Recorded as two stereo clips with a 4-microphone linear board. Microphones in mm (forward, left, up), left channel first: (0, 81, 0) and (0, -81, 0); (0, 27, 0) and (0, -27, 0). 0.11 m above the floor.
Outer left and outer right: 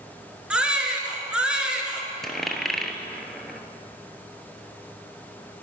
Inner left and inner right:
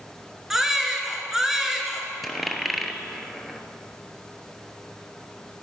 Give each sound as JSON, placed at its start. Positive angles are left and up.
{"t": 0.5, "sound": "a baby crying", "side_deg": -5, "distance_m": 1.4}
{"t": 2.2, "sound": "a dropped coin", "side_deg": 0, "distance_m": 0.9}